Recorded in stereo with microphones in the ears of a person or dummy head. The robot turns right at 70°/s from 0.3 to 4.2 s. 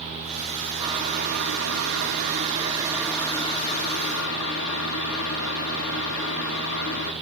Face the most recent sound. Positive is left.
turn(degrees=75)